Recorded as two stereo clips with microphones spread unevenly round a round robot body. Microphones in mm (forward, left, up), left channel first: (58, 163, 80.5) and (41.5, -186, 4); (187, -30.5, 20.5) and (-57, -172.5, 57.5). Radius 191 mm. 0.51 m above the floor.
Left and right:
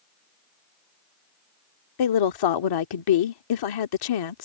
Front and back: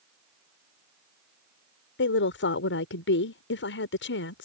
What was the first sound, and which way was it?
A woman speaking, 70° left.